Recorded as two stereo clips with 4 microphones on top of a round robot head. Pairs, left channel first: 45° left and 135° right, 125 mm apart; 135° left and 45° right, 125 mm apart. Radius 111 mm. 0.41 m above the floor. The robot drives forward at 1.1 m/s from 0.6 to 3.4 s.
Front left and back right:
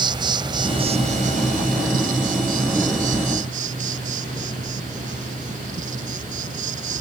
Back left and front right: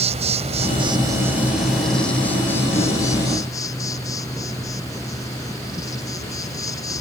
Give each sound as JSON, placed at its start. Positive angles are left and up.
{"t": 0.0, "sound": "an insect", "azimuth_deg": -80}